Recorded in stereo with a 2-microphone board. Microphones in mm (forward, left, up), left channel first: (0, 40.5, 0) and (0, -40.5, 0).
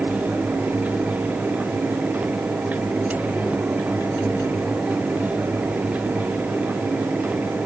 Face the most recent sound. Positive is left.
No sound to turn to.